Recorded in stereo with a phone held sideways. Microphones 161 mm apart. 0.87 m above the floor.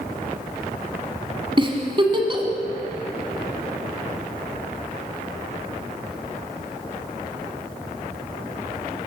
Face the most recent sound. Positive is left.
turn(degrees=-35)  # may be behind; listen again after turning